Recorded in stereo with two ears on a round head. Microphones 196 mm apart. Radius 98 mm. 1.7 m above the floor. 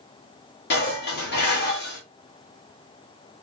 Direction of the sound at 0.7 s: 50° left (ahead or behind).